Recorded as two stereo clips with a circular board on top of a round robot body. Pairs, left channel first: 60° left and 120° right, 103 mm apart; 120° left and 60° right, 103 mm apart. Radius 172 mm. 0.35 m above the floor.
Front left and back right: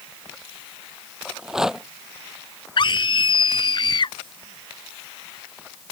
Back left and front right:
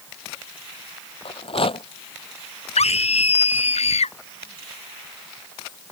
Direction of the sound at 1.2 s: 155° left.